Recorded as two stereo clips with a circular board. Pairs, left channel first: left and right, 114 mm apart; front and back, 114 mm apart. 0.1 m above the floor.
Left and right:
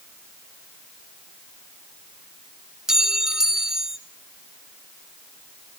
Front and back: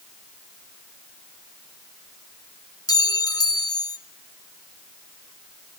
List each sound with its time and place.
2.9 s a clink: 10° right, 1.0 m